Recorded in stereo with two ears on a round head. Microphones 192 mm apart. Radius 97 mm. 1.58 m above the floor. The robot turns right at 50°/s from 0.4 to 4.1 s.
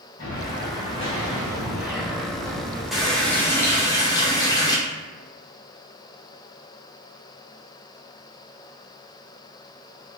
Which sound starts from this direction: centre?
A running tap, at 2.9 s.